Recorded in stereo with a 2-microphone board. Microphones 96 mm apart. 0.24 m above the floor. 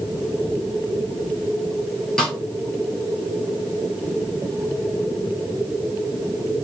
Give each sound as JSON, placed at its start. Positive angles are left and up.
{"t": 2.2, "sound": "a snare drum", "side_deg": 10, "distance_m": 2.5}